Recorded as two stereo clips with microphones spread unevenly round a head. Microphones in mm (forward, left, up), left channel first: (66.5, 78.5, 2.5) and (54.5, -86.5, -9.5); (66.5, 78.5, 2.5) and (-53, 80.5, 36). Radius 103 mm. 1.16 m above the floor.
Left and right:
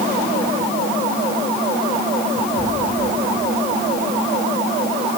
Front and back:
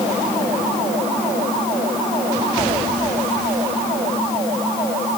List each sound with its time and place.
Only background noise.